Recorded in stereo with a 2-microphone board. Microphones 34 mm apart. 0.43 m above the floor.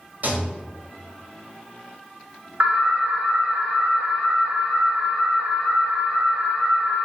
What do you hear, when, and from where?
0.2 s a rattle: 55° right (ahead or behind), 1.2 m
2.6 s an alarm: 55° right (ahead or behind), 1.2 m